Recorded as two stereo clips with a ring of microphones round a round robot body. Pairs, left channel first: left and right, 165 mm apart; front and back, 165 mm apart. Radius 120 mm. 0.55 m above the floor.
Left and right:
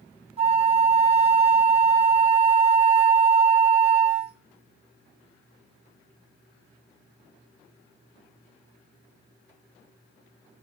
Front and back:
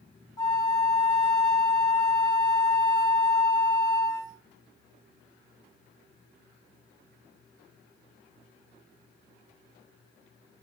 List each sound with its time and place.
0.4 s a flute: 60° right, 0.6 m